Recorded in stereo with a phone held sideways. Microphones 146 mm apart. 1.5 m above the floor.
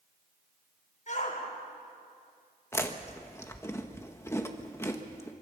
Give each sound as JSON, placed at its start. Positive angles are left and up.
{"t": 1.1, "sound": "a shout", "side_deg": 55, "distance_m": 7.0}
{"t": 2.7, "sound": "chewing", "side_deg": 20, "distance_m": 1.4}